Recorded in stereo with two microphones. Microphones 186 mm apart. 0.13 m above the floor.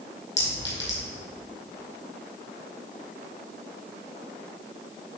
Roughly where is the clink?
Left.